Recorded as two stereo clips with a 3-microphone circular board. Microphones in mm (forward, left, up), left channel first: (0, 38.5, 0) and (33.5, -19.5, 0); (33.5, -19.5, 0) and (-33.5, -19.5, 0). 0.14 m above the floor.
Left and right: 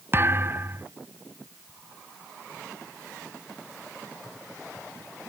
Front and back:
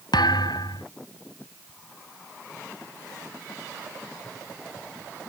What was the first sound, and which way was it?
A thud, 5° right.